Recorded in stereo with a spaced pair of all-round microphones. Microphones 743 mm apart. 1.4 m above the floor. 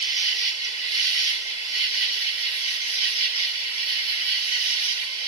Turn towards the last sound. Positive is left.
turn(degrees=-70)  # may be behind; listen again after turning